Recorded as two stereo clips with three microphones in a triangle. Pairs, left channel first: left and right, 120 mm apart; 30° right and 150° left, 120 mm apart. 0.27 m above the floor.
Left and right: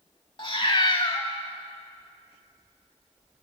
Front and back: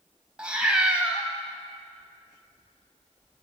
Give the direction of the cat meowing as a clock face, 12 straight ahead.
10 o'clock.